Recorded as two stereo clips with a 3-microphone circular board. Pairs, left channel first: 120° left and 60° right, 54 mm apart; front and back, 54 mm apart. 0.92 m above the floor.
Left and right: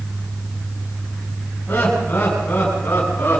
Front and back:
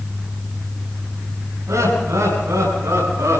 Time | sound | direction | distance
1.7 | laughter | straight behind | 7.5 m